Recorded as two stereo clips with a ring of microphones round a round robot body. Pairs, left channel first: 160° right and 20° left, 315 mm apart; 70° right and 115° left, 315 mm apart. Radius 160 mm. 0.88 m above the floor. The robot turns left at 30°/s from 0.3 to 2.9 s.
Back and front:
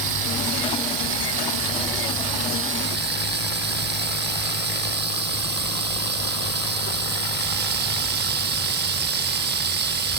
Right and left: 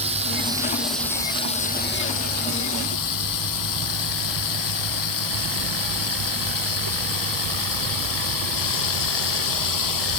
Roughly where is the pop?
I don't hear a pop.